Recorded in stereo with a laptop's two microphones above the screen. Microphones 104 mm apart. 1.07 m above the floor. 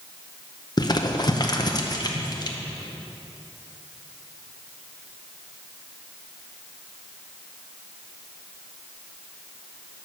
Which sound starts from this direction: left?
Crumpling, at 0.8 s.